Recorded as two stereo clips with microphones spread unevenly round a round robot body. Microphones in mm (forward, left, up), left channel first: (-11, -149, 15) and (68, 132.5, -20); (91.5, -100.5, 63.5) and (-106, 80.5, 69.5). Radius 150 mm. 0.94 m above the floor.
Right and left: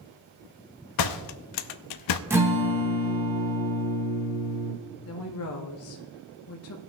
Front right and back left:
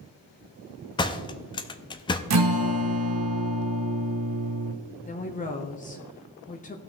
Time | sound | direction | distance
1.0 | a door slam | 115° right | 0.5 m
2.3 | a guitar | 155° left | 1.2 m
5.1 | a woman speaking | 90° right | 1.1 m